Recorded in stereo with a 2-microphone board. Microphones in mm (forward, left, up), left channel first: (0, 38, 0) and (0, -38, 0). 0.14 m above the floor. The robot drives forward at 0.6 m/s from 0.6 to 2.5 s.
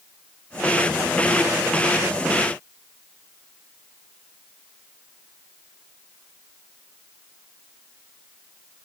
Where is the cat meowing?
I don't hear a cat meowing.